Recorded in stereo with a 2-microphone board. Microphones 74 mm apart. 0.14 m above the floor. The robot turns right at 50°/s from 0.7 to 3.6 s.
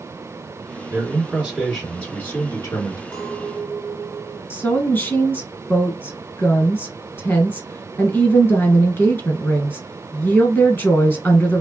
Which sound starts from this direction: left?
A woman speaking, at 4.5 s.